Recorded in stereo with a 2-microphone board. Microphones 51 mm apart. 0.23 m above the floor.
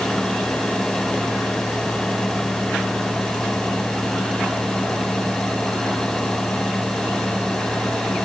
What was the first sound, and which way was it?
Only background noise.